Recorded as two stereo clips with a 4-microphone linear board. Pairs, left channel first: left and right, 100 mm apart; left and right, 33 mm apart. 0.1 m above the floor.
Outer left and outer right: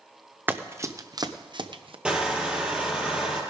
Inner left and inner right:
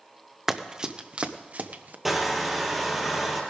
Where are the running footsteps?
20° right (ahead or behind), 1.1 m; by 1.9 s 60° right (ahead or behind), 1.3 m.